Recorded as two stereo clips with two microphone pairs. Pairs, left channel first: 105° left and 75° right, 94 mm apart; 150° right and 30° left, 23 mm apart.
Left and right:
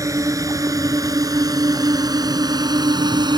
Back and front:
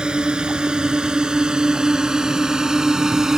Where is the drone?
20° right; by 3.4 s 35° right.